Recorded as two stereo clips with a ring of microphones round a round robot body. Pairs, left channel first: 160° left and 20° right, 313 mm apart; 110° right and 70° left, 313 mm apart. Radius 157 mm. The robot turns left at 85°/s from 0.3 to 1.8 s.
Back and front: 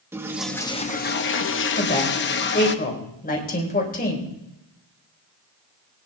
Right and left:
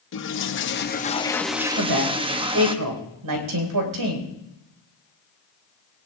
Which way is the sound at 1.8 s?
100° left.